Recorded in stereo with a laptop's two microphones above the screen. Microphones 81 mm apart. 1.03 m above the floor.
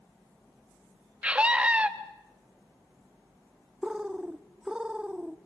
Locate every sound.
1.2 s a scream: 15° right (ahead or behind), 1.2 m
3.8 s a bird: 10° right (ahead or behind), 0.9 m